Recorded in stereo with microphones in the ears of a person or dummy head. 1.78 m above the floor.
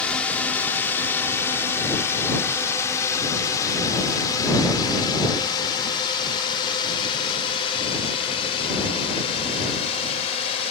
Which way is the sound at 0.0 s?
10° left (ahead or behind).